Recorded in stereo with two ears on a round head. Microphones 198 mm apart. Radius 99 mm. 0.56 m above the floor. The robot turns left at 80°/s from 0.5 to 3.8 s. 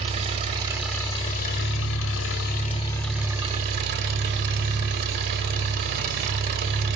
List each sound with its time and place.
0.0 s an engine running: 150° right, 0.8 m; by 7.0 s 55° right, 0.8 m